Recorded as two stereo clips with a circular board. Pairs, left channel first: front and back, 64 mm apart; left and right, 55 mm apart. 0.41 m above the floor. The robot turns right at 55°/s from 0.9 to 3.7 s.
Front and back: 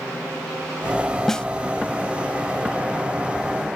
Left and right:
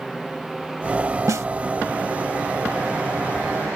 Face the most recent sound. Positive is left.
turn(degrees=50)